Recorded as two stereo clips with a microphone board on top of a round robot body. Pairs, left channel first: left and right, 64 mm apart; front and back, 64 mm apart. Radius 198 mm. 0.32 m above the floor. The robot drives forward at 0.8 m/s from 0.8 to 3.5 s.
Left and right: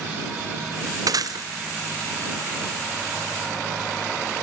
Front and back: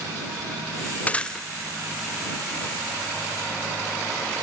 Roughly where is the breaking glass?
Ahead right.